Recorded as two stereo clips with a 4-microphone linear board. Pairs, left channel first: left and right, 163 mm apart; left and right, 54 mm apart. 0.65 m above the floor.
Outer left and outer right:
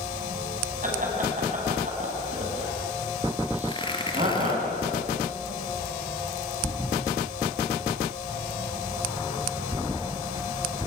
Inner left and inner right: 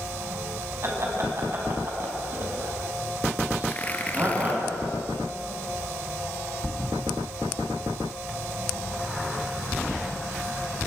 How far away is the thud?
About 2.5 m.